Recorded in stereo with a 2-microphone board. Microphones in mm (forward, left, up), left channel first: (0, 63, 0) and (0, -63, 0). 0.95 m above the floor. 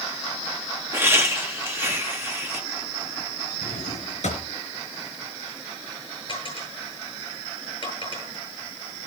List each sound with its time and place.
0.9 s laughter: 20° right (ahead or behind), 1.4 m
3.6 s a drawer: 80° left, 4 m
6.3 s a dropped coin: 45° left (ahead or behind), 9.5 m